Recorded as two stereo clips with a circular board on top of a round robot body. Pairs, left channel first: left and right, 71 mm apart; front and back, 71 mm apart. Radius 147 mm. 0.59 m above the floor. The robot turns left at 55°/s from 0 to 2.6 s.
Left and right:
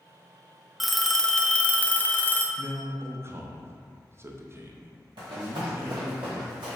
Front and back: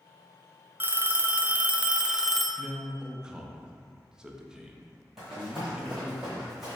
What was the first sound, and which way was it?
A phone ringing, 175° right.